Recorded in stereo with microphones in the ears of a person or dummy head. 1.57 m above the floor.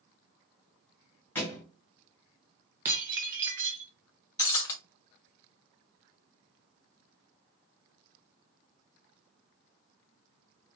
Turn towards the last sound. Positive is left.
turn(degrees=20)  # may be behind; listen again after turning